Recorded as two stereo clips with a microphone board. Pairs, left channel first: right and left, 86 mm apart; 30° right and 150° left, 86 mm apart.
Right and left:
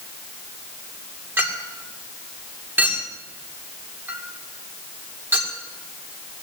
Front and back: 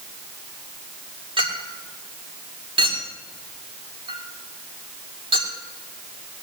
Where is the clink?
155° left, 2.5 m.